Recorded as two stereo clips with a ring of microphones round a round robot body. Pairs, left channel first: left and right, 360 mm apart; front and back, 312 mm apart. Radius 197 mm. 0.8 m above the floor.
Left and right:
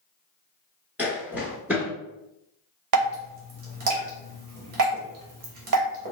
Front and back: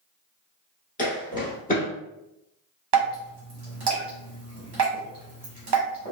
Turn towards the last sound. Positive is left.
turn(degrees=-130)